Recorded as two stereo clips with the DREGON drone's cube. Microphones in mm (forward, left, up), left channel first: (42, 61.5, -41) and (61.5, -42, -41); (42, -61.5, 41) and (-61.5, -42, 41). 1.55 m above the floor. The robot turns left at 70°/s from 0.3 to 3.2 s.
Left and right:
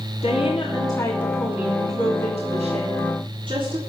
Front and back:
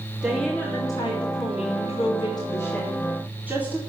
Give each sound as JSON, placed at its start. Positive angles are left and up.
{"t": 0.2, "sound": "a woman speaking", "azimuth_deg": 85, "distance_m": 3.0}